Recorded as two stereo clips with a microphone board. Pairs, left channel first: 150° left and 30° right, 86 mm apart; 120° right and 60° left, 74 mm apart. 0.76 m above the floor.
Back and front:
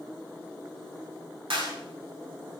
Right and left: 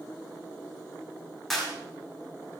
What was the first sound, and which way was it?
A clap, 30° right.